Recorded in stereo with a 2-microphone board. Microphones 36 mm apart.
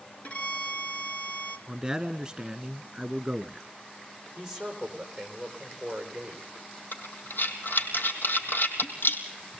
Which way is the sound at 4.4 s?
10° right (ahead or behind).